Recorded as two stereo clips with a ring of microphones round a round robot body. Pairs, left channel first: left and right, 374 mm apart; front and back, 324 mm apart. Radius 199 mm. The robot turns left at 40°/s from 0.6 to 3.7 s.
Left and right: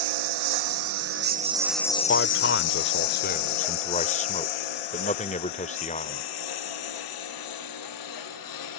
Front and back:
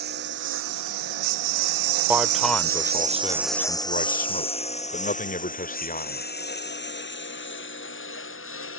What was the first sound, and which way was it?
A lawn mower, 115° right.